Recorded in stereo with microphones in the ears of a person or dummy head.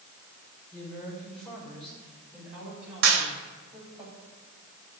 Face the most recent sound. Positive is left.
turn(degrees=-75)  # may be behind; listen again after turning